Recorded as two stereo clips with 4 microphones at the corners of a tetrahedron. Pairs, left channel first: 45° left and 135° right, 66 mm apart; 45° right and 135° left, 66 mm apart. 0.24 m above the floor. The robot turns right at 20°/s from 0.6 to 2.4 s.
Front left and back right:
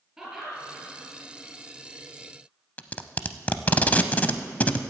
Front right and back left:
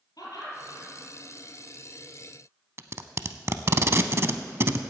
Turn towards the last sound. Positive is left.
turn(degrees=105)